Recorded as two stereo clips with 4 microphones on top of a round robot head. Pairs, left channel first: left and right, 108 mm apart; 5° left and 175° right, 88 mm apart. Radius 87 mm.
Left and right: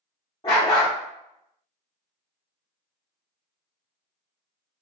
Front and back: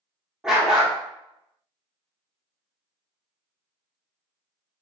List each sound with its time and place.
0.4 s a dog barking: 110° left, 0.6 m